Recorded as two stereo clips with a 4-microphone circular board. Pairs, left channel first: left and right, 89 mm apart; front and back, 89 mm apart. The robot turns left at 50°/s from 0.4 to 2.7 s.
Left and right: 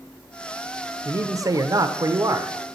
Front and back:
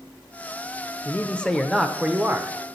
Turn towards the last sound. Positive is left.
turn(degrees=-135)